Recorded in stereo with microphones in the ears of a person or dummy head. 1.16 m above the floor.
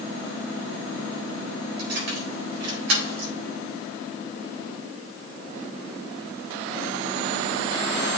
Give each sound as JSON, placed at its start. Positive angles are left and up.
{"t": 1.8, "sound": "keys jangling", "side_deg": -85, "distance_m": 4.0}